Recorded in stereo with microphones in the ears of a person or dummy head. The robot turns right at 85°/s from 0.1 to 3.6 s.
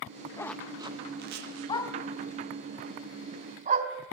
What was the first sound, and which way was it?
A zipper, 20° left (ahead or behind).